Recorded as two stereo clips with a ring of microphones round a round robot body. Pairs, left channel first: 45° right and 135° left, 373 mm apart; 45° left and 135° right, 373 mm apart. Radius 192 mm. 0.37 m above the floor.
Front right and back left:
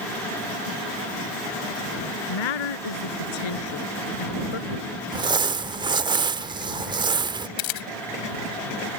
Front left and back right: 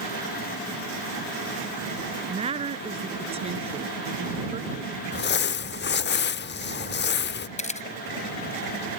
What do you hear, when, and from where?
2.3 s a woman speaking: 60° right
5.1 s crumpling: 70° left
7.6 s a camera shutter: 25° right